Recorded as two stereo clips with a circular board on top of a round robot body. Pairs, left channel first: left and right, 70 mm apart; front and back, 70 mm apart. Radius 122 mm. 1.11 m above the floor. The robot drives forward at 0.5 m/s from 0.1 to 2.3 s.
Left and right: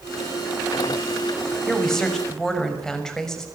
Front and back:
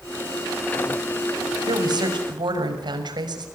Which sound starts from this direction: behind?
A woman speaking, at 1.7 s.